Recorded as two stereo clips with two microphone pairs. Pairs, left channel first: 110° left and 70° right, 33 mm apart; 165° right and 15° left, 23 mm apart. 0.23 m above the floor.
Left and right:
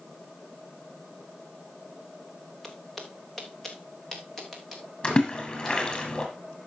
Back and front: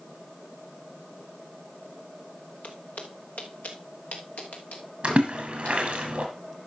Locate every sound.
2.6 s footsteps: 165° right, 1.9 m; by 5.8 s 170° right, 4 m
5.0 s a splash: 60° left, 3.5 m